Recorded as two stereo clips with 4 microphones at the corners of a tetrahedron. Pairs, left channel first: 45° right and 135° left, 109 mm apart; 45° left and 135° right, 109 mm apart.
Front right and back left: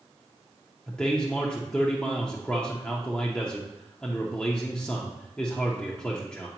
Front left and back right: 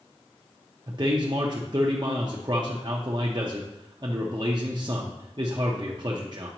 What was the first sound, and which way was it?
A man speaking, 120° right.